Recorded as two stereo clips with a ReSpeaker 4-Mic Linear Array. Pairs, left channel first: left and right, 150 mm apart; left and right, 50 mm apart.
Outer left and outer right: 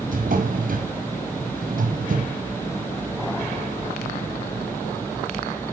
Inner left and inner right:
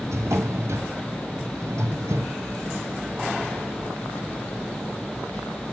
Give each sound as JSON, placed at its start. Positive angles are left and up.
{"t": 0.1, "sound": "a drawer", "side_deg": -70, "distance_m": 1.5}